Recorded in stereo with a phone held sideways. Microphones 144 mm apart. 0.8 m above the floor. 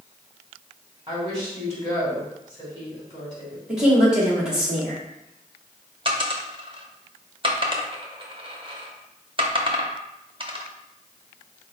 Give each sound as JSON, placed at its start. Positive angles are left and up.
{"t": 1.1, "sound": "a woman speaking", "side_deg": -35, "distance_m": 2.5}
{"t": 3.7, "sound": "a woman speaking", "side_deg": -5, "distance_m": 2.0}
{"t": 6.0, "sound": "a dropped coin", "side_deg": -35, "distance_m": 0.6}